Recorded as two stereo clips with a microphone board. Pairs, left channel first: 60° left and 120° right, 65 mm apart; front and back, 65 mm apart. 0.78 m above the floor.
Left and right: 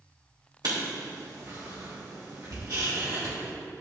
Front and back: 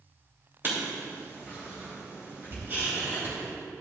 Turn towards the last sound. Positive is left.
turn(degrees=-125)